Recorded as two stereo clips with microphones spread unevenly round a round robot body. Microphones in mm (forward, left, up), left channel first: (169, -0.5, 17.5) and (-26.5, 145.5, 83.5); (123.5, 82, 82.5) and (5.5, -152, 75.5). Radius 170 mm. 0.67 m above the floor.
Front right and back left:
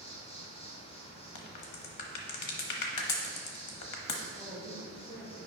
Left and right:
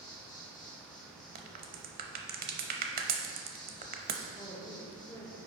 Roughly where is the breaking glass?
No breaking glass in this recording.